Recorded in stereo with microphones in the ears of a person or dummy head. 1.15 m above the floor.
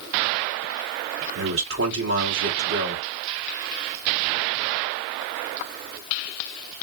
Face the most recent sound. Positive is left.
turn(degrees=-70)  # may be behind; listen again after turning